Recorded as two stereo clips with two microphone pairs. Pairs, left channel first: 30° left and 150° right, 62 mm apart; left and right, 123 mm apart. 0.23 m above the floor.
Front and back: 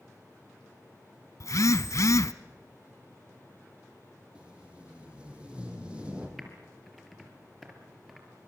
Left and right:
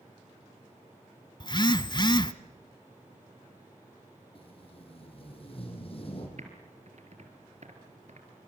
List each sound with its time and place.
1.4 s a phone buzzing: 45° left, 0.7 m
4.3 s tape being pulled: 135° left, 4.5 m
6.4 s typing on a keyboard: 65° right, 3.5 m